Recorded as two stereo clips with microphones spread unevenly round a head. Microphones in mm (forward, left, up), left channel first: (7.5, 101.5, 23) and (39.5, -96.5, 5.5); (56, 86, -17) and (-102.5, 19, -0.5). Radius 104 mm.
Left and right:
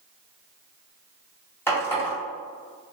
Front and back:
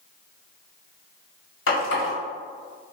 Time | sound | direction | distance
1.7 | a running tap | 20° left | 1.4 m